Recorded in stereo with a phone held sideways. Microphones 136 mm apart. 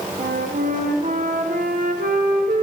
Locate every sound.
0.2 s a flute: 85° right, 1.3 m